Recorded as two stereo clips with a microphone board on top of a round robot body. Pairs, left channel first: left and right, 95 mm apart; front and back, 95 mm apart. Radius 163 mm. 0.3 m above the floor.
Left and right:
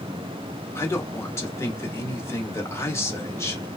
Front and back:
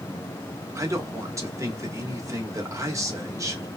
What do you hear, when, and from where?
0.8 s a man speaking: 140° left, 1.3 m